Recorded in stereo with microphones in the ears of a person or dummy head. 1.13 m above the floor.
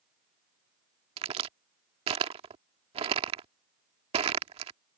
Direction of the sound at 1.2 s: 35° right (ahead or behind).